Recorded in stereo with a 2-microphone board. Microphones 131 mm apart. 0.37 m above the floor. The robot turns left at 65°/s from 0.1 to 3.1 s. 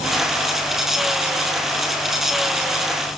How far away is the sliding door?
No sliding door in this recording.